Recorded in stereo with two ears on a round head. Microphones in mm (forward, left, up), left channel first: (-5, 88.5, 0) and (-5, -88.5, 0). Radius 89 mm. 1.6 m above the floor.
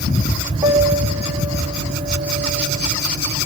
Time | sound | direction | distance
0.6 | a piano | 25° right (ahead or behind) | 4 m